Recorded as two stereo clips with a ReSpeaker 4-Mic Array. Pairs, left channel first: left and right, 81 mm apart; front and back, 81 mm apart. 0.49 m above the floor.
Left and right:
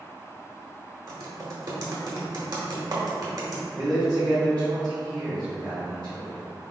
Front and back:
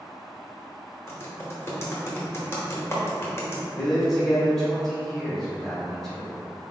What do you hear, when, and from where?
1.1 s typing on a keyboard: 60° right, 0.8 m
3.7 s a man speaking: 85° right, 1.5 m